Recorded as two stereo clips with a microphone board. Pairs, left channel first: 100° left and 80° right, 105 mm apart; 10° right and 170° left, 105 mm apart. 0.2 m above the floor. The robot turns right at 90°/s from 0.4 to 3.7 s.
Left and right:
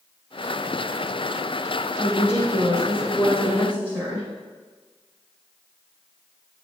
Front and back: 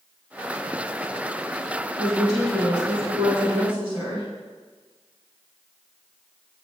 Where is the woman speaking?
55° left, 2 m; by 4.3 s 150° right, 2 m.